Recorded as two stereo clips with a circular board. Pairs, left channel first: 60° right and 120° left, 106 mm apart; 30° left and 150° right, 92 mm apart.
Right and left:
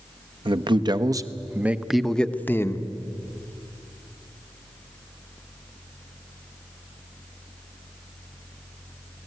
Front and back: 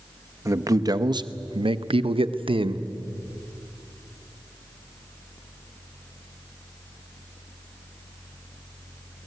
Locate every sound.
0.5 s a man speaking: 155° left, 1.1 m; by 2.8 s 125° right, 0.9 m